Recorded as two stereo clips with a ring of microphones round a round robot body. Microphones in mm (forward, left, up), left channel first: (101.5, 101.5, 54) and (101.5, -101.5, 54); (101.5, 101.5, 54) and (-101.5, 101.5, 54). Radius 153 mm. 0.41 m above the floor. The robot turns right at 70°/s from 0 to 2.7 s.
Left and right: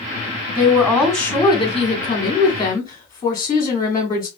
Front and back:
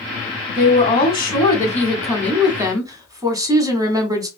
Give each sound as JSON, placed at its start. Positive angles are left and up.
{"t": 0.6, "sound": "a woman speaking", "azimuth_deg": -15, "distance_m": 1.2}